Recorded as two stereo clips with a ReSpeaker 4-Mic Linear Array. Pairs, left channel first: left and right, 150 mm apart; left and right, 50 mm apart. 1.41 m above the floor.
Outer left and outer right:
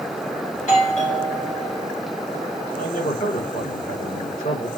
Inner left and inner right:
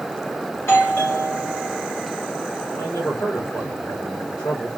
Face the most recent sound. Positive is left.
turn(degrees=85)